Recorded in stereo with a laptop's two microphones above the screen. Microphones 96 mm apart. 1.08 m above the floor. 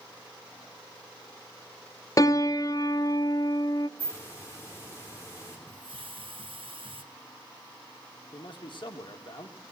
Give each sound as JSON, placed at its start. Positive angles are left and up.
{"t": 2.2, "sound": "a piano", "side_deg": 35, "distance_m": 0.7}
{"t": 4.0, "sound": "a hiss", "side_deg": 30, "distance_m": 3.5}
{"t": 5.7, "sound": "a hiss", "side_deg": -65, "distance_m": 1.1}
{"t": 8.3, "sound": "a man speaking", "side_deg": 60, "distance_m": 2.0}